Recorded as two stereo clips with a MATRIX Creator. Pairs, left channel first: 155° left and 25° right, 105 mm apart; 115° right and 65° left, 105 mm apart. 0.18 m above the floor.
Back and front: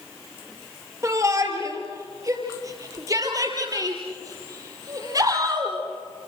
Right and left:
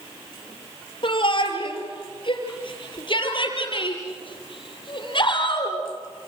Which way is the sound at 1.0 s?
80° right.